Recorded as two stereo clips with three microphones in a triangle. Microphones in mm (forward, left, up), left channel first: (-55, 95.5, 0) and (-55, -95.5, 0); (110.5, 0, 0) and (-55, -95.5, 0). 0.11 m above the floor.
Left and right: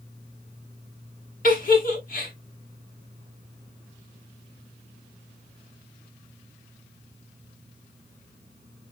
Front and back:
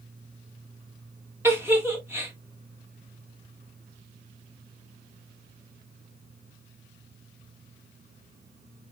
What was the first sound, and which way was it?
A giggle, 135° left.